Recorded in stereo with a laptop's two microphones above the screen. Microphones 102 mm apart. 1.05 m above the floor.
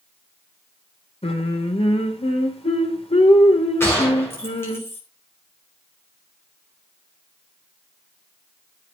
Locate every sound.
1.2 s singing: 70° left (ahead or behind), 2.5 m
3.8 s a gunshot: 25° left (ahead or behind), 5 m